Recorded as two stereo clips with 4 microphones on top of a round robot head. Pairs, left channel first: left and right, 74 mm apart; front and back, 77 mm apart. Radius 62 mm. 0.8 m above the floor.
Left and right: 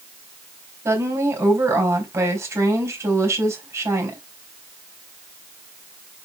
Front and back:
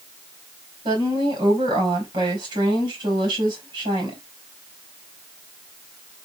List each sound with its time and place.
0.8 s a woman speaking: 140° right, 3.5 m